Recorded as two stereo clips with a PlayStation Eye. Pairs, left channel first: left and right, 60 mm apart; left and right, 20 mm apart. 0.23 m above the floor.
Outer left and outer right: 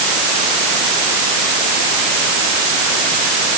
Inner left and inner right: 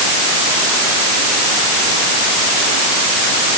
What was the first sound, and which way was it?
Only background noise.